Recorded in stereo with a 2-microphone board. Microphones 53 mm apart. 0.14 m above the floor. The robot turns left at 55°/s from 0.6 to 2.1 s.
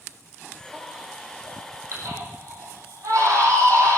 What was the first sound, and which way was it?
A baby crying, 5° right (ahead or behind).